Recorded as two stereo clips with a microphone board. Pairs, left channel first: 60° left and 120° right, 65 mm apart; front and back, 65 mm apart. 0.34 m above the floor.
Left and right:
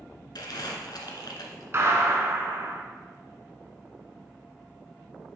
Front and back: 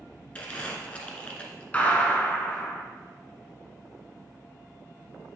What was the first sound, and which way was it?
Crumpling, 70° left.